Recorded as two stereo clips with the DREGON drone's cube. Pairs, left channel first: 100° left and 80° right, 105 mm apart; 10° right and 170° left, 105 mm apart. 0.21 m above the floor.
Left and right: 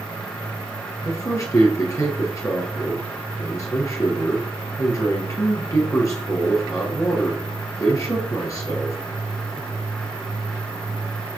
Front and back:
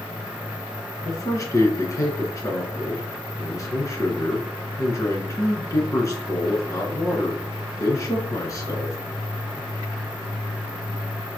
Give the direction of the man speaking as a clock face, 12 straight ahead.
11 o'clock.